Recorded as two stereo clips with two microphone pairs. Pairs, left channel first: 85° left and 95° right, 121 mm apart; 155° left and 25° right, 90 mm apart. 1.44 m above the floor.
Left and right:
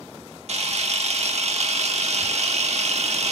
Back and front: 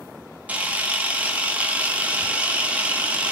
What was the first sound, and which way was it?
A camera shutter, 95° right.